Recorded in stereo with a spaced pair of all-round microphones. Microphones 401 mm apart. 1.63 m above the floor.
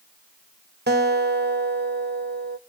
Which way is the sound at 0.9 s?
25° right (ahead or behind).